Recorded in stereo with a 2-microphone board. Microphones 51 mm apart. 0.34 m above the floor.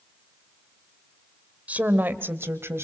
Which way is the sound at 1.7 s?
25° right (ahead or behind).